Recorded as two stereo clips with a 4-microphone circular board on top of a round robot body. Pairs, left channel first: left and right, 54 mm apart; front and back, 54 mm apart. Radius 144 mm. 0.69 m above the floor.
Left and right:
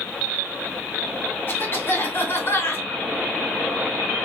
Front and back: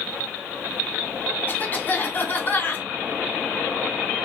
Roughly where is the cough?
Ahead left.